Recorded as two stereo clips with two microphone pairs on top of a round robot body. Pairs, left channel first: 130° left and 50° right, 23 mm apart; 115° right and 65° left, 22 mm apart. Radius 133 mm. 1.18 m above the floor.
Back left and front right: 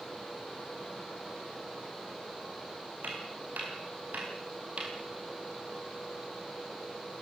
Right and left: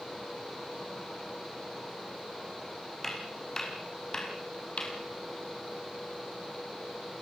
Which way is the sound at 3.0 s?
45° right.